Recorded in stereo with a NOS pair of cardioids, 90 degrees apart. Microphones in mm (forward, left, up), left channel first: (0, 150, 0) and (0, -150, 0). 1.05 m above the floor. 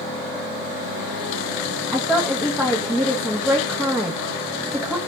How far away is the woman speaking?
About 1.1 m.